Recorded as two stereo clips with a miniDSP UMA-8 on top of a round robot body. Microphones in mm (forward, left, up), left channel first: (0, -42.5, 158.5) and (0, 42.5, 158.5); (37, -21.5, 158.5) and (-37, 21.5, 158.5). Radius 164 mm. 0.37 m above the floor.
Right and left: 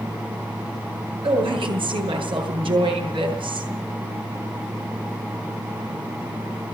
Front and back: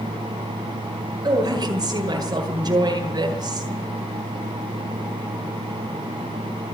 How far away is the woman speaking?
About 9.5 m.